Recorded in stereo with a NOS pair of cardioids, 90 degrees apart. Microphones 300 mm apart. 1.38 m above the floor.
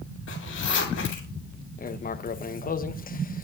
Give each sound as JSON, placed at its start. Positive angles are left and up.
{"t": 0.3, "sound": "a zipper", "azimuth_deg": 45, "distance_m": 7.5}
{"t": 1.8, "sound": "writing", "azimuth_deg": 30, "distance_m": 1.0}